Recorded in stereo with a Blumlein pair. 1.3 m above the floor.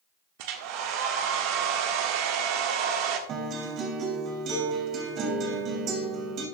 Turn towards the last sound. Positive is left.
turn(degrees=-35)